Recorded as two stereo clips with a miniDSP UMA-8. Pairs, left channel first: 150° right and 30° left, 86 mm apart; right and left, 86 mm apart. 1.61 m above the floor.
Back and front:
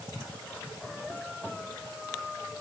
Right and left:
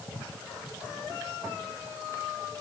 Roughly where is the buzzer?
I don't hear a buzzer.